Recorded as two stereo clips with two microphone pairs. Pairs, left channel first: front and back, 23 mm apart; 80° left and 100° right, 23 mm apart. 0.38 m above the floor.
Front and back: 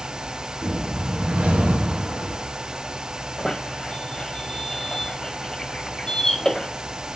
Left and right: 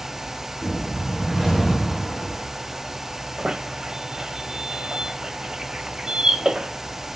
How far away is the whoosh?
About 3.5 m.